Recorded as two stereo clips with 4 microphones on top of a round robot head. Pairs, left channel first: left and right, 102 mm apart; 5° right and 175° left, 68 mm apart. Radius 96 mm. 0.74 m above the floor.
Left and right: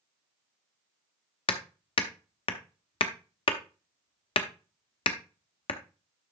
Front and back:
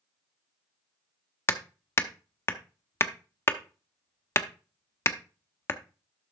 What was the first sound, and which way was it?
Hammering, 50° left.